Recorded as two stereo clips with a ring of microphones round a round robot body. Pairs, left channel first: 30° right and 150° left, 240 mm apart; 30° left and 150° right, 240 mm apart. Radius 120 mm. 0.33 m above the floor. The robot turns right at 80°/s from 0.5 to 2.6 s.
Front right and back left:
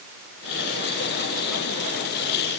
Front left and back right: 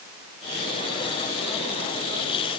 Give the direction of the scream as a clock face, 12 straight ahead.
I don't hear a scream.